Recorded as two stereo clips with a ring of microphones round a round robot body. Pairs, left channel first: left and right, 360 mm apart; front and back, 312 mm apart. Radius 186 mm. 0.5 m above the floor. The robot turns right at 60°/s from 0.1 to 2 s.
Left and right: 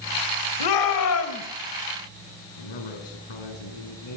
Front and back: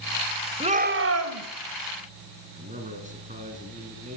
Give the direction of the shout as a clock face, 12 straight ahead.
8 o'clock.